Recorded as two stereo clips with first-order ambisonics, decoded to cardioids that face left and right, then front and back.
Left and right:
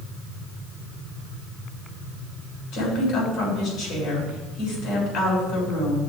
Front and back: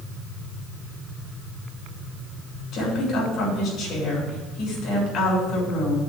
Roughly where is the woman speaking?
Ahead left.